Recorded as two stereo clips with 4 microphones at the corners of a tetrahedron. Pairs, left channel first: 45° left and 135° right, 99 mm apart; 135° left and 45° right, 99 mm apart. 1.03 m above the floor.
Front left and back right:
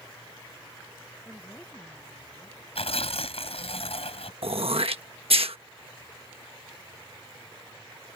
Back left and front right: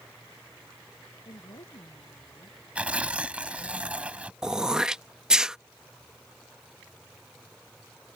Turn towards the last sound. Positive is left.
turn(degrees=-125)